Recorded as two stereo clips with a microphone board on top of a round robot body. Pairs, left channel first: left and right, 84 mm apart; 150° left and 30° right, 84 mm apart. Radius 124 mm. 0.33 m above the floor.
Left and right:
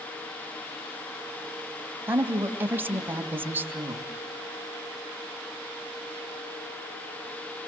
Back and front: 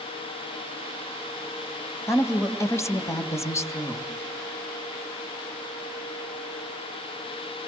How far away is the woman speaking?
About 2.5 m.